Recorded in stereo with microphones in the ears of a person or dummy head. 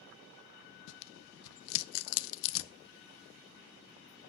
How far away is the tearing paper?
About 0.6 m.